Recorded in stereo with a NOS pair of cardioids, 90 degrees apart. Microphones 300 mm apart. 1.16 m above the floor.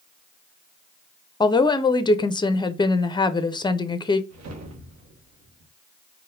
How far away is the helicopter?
I don't hear a helicopter.